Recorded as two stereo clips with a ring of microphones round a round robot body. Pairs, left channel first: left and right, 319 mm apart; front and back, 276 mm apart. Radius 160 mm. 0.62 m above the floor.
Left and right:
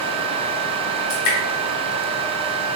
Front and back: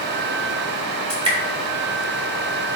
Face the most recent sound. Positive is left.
turn(degrees=110)